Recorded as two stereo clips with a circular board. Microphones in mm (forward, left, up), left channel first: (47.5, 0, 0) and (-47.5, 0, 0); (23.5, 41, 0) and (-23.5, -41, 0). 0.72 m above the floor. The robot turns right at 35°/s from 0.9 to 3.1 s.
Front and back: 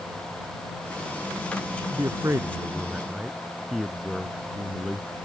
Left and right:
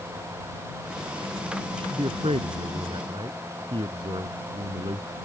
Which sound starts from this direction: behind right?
A man speaking, at 1.7 s.